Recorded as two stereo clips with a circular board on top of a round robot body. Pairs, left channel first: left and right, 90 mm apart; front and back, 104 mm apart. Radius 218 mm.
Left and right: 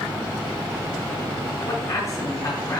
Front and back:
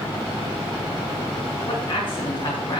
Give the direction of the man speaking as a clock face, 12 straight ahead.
11 o'clock.